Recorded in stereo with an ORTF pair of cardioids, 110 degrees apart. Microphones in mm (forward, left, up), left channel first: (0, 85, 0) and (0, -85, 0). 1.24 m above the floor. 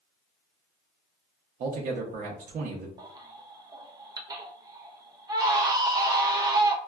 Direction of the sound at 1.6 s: 55° right.